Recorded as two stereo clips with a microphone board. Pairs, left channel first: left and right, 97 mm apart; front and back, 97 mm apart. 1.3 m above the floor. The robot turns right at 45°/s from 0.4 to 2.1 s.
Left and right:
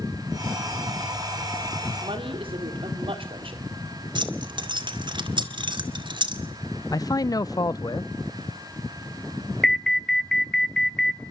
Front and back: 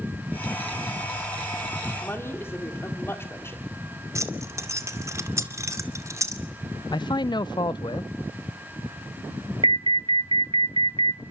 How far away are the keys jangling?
About 2 m.